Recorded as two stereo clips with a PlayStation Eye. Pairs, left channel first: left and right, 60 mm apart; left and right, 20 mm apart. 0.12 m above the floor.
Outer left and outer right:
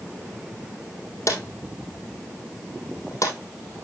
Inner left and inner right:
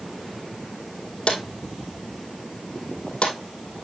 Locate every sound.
1.3 s a drawer: 55° left (ahead or behind), 2 m